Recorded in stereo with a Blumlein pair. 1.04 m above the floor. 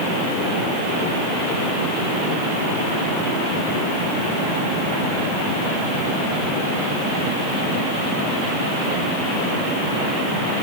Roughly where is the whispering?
No whispering in this recording.